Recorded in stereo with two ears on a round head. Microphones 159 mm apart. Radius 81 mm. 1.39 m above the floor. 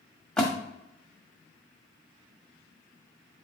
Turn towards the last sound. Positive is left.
turn(degrees=5)  # may be behind; listen again after turning